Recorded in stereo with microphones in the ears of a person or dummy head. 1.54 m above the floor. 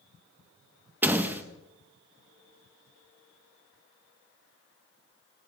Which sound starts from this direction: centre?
A door slam, at 1.0 s.